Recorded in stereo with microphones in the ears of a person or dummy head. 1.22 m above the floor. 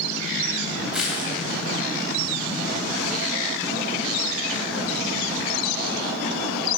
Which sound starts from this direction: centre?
Crushing, at 0.9 s.